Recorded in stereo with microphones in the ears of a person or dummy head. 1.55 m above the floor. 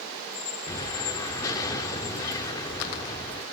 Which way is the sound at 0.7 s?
20° left (ahead or behind).